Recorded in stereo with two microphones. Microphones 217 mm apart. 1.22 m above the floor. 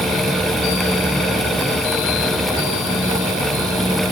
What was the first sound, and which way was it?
Only background noise.